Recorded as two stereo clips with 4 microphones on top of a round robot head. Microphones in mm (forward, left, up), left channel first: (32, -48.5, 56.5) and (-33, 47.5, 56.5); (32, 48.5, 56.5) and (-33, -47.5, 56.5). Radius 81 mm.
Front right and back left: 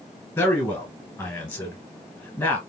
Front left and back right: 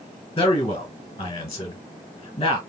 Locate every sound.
0.4 s a man speaking: 5° left, 1.5 m